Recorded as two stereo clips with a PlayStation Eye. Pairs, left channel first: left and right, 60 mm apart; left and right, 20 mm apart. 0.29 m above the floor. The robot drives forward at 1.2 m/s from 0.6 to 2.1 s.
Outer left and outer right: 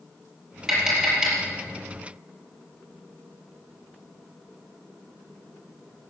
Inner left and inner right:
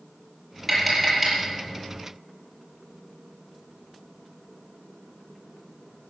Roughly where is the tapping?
Centre.